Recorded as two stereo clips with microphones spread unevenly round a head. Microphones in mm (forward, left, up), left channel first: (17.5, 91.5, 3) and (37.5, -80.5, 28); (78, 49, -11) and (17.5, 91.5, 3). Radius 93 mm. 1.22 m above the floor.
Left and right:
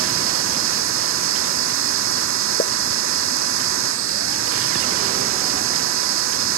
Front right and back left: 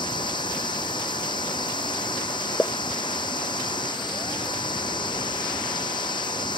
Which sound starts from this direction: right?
A machine running, at 0.0 s.